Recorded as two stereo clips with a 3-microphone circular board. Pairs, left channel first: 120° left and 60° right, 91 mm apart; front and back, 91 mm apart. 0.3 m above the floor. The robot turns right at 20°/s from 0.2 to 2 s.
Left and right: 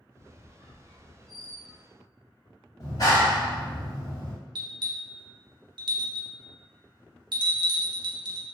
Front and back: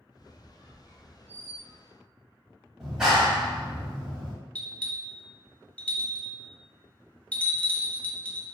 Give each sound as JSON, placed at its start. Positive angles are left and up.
{"t": 0.2, "sound": "a squeak", "azimuth_deg": 105, "distance_m": 1.3}
{"t": 2.8, "sound": "a clap", "azimuth_deg": 95, "distance_m": 1.0}
{"t": 4.5, "sound": "a bell", "azimuth_deg": -70, "distance_m": 0.6}